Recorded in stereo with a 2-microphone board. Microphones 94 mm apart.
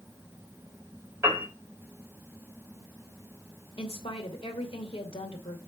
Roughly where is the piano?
Right.